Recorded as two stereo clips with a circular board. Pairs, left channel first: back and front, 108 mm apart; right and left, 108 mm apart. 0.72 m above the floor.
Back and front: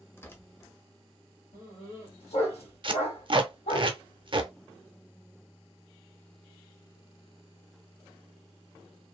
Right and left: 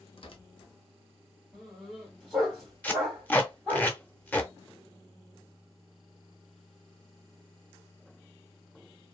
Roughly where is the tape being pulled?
Ahead.